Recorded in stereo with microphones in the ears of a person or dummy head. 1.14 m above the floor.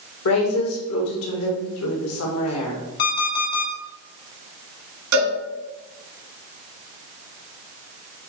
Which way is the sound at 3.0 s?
65° left (ahead or behind).